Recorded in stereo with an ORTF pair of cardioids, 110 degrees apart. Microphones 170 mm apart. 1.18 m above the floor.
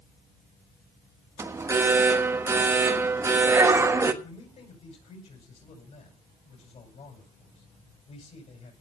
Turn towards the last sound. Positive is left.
turn(degrees=45)